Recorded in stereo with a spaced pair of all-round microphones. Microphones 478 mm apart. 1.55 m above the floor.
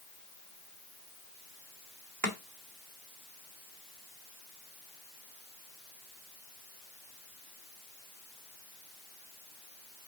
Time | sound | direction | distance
2.2 | chopping | 40° right (ahead or behind) | 1.6 m